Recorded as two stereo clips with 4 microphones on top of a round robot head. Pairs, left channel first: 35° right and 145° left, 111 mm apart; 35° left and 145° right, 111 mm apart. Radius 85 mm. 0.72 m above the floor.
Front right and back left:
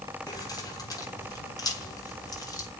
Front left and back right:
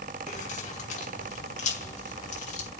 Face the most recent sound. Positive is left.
turn(degrees=25)